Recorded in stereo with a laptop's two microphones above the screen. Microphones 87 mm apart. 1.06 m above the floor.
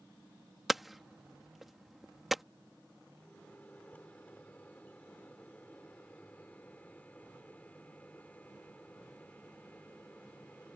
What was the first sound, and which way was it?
Hammering, centre (ahead or behind).